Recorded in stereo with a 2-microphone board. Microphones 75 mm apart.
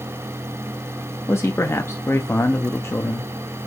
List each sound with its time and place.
1.3 s a man speaking: 35° left (ahead or behind), 0.6 m